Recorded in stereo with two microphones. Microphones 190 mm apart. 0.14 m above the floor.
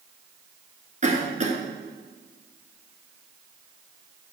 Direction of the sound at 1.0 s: 40° right (ahead or behind).